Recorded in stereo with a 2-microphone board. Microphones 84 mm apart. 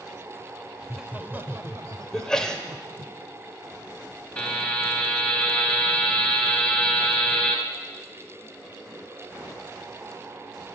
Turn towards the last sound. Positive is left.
turn(degrees=15)  # may be behind; listen again after turning